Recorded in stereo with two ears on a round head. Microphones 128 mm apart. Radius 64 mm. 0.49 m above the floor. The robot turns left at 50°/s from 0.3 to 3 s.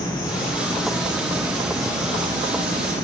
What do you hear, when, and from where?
0.0 s an insect: 30° left, 3.5 m; by 3.0 s 105° right, 3.5 m